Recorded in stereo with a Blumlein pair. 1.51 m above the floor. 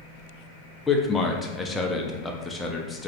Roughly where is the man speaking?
Ahead.